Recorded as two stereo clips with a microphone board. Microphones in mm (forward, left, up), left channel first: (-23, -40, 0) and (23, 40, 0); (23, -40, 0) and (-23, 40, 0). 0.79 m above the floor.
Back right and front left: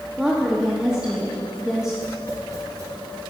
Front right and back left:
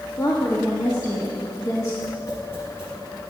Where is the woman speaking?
20° right, 1.4 m.